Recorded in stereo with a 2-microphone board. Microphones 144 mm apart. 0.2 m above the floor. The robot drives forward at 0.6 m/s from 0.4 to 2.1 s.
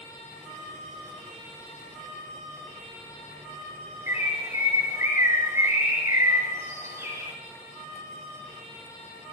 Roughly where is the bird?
Centre.